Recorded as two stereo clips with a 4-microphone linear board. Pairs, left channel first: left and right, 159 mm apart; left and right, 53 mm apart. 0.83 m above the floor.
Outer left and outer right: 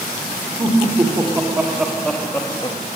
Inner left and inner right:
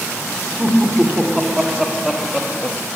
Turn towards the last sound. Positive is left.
turn(degrees=30)  # may be behind; listen again after turning